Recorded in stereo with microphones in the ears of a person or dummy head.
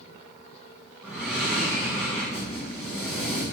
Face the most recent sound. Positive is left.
turn(degrees=-5)  # may be behind; listen again after turning